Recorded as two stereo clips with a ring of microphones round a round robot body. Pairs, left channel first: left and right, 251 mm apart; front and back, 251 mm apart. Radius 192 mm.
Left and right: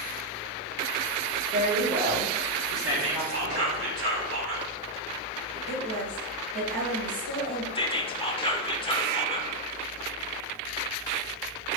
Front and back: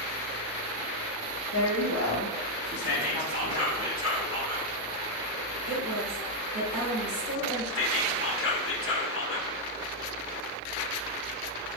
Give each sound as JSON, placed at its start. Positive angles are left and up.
{"t": 1.5, "sound": "a woman speaking", "azimuth_deg": -40, "distance_m": 2.5}
{"t": 2.8, "sound": "whispering", "azimuth_deg": -70, "distance_m": 3.5}
{"t": 5.7, "sound": "a woman speaking", "azimuth_deg": -135, "distance_m": 2.5}
{"t": 7.8, "sound": "whispering", "azimuth_deg": 20, "distance_m": 1.6}